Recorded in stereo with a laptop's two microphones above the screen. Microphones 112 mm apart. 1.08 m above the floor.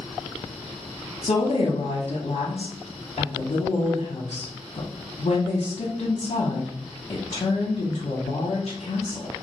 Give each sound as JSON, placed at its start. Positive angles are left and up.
{"t": 1.2, "sound": "a woman speaking", "side_deg": 70, "distance_m": 0.7}